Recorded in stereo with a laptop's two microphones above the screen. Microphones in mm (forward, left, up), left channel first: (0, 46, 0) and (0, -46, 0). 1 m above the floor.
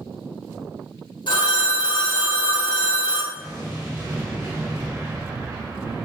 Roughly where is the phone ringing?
Left.